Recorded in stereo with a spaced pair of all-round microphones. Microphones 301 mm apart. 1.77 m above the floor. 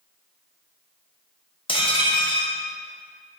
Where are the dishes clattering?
15° left (ahead or behind), 0.8 m.